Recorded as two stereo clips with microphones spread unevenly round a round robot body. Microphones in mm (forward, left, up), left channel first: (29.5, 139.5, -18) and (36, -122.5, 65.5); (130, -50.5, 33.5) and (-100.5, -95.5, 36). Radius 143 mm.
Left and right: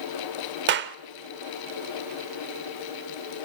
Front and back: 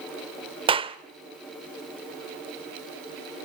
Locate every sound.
0.7 s a clap: 130° right, 0.9 m